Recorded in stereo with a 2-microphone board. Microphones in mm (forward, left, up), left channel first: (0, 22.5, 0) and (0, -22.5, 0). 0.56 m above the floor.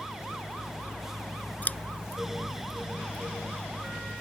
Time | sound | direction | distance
1.6 | scissors | 40° left (ahead or behind) | ?